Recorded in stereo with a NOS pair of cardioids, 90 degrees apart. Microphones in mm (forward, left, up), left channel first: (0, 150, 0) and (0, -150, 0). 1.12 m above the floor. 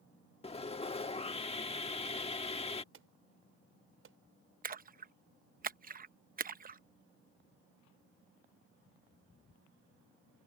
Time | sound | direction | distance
0.4 | sawing | 20° left | ?
2.9 | an alarm | 45° right | ?
4.6 | a splash | 30° right | ?